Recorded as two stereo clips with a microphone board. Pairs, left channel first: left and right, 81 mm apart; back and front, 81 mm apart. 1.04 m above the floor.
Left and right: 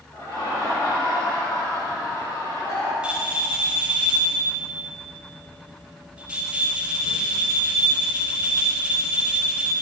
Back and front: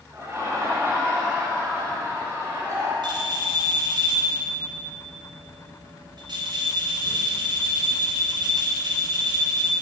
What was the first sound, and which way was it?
Laughter, 50° left.